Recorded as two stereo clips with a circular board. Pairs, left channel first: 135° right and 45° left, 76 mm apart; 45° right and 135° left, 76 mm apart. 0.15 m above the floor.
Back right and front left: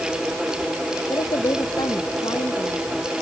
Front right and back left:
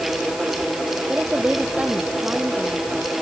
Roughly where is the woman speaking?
Behind right.